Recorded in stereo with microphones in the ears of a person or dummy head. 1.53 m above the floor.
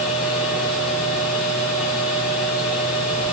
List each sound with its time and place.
0.0 s a machine running: 5° right (ahead or behind), 7 m